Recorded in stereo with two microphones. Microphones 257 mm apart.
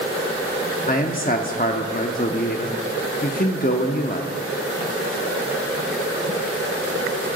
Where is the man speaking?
35° left (ahead or behind), 0.8 m.